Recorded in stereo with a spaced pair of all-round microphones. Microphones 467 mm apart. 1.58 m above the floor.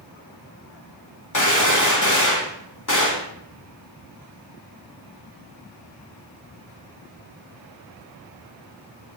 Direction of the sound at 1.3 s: 40° left (ahead or behind).